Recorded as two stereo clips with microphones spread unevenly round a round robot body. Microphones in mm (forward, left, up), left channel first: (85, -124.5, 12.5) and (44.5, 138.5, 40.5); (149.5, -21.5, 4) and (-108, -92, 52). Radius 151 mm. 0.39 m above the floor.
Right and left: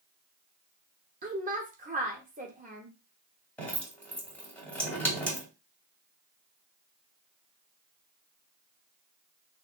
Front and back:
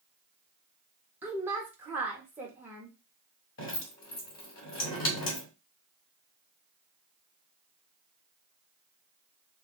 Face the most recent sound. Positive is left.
turn(degrees=0)